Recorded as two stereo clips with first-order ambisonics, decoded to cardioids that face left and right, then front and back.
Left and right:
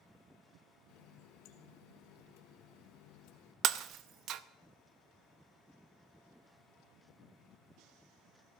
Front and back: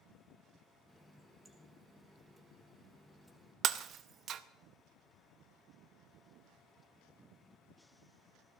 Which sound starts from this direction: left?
A running tap, at 0.9 s.